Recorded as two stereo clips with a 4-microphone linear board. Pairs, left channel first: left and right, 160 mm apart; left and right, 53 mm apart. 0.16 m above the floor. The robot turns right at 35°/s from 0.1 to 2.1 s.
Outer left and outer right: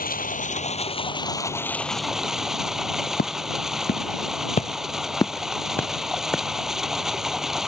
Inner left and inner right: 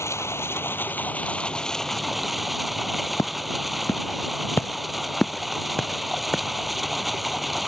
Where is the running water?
115° left; by 7.7 s 175° right.